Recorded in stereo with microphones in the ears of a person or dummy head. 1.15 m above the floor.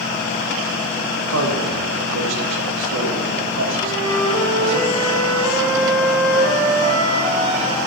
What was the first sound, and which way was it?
A man speaking, 75° right (ahead or behind).